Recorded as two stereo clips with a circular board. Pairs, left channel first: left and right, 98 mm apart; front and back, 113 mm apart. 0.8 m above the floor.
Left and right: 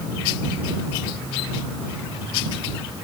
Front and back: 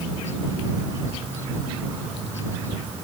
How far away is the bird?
I don't hear a bird.